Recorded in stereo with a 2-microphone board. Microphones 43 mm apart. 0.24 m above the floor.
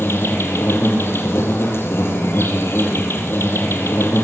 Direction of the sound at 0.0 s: 70° left (ahead or behind).